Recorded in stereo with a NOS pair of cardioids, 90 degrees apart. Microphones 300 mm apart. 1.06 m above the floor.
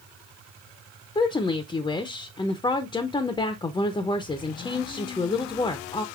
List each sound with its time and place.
1.1 s a woman speaking: 15° left, 0.5 m